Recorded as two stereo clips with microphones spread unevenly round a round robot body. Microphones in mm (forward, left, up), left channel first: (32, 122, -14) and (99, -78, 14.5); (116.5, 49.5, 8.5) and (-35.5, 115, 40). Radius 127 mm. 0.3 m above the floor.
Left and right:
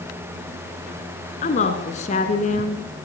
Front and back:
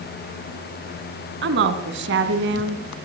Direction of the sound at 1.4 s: 170° left.